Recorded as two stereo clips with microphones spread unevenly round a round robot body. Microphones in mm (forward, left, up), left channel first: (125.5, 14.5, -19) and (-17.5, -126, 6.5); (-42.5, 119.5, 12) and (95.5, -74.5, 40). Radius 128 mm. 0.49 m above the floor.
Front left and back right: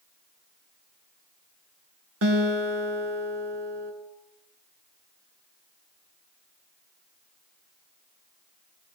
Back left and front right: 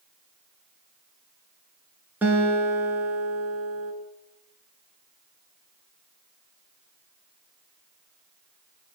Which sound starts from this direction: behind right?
A guitar, at 2.2 s.